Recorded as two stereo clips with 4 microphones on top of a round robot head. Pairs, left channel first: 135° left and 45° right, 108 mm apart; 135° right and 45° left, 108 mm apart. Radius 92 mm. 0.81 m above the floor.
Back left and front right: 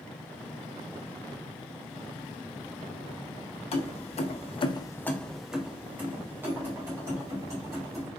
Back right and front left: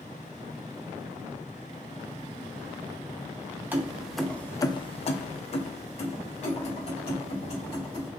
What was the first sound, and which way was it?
Keys jangling, 115° left.